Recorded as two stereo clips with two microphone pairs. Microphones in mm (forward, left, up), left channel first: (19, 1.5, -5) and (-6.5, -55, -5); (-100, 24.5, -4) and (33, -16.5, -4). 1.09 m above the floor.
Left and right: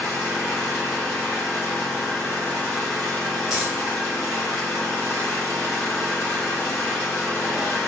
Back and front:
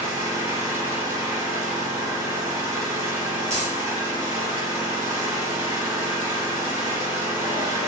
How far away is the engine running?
About 1.8 m.